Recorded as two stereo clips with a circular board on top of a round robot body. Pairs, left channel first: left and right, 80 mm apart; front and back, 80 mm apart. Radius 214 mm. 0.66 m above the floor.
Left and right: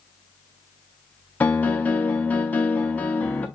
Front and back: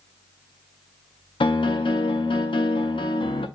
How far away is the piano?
About 0.5 m.